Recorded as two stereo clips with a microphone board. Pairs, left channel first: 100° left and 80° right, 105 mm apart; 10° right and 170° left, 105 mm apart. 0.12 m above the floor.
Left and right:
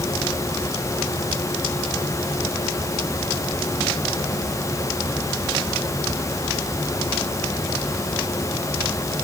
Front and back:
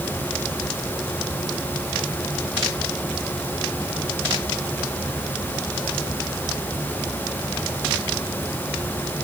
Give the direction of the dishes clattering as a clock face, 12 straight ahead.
No dishes clattering in this recording.